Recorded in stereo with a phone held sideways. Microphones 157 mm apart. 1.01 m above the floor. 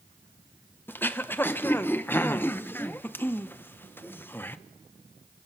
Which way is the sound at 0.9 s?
15° left (ahead or behind).